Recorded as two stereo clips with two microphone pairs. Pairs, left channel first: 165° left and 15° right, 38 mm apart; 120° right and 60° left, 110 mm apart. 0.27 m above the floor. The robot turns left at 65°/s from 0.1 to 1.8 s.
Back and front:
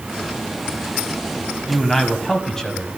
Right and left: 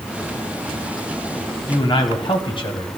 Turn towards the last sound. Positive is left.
turn(degrees=-120)